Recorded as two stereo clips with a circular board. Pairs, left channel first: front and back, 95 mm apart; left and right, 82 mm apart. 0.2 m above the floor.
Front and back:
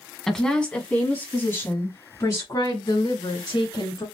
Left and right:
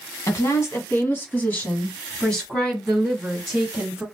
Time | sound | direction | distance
0.3 | a woman speaking | 85° left | 1.9 m